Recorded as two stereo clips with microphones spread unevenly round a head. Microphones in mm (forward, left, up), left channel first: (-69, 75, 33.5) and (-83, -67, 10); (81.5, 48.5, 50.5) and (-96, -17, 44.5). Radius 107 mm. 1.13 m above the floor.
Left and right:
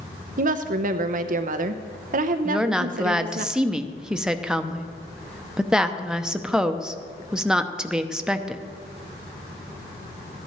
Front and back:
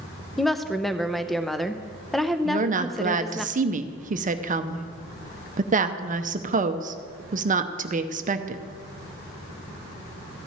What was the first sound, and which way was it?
A woman speaking, 70° right.